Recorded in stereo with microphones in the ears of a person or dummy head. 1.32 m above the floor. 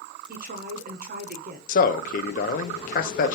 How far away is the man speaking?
About 0.5 m.